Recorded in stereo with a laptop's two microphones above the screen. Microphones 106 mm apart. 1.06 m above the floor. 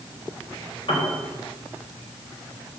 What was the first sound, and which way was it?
A piano, 55° left (ahead or behind).